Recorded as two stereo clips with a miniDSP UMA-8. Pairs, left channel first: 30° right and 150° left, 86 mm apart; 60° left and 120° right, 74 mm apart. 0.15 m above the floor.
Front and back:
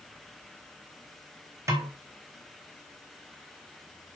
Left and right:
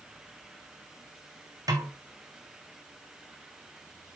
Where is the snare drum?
155° right, 2.5 m.